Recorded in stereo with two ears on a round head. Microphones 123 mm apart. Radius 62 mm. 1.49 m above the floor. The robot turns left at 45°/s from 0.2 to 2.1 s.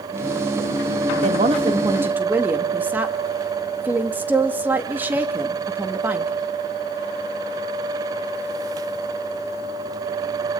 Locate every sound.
1.2 s a woman speaking: 125° right, 2.5 m; by 6.3 s 165° right, 2.5 m